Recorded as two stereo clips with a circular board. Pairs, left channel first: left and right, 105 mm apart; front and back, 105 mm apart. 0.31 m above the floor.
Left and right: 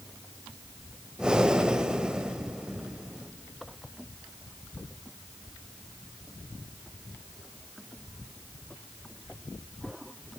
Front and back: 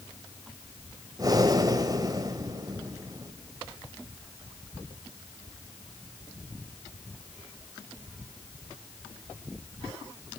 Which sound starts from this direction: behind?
Breathing, at 1.2 s.